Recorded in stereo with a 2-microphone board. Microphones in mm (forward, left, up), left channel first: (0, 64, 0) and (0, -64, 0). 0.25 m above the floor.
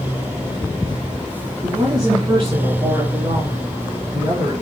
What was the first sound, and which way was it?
A woman speaking, 35° right (ahead or behind).